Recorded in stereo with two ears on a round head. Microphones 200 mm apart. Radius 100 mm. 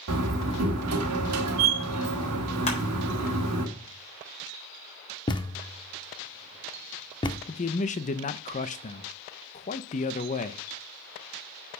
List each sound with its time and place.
0.1 s a door slam: 85° right, 1.5 m
2.7 s crushing: 30° left (ahead or behind), 4 m
5.3 s a thud: 20° left (ahead or behind), 0.5 m
7.5 s a man speaking: 35° left (ahead or behind), 0.6 m